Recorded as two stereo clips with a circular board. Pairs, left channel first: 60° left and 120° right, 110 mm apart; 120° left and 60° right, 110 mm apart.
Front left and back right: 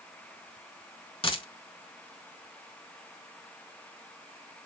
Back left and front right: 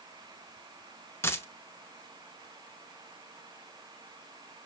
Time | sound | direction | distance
1.2 | a dropped coin | 60° left | 0.6 m